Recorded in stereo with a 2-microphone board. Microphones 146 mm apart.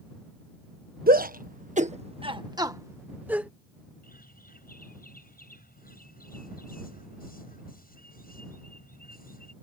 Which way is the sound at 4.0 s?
85° left.